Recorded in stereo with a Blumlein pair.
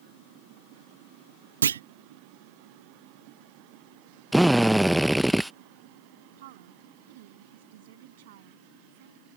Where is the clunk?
65° right.